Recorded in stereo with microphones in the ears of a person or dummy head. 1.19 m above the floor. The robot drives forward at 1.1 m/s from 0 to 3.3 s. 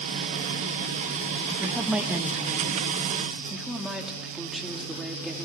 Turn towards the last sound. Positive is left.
turn(degrees=-5)  # may be behind; listen again after turning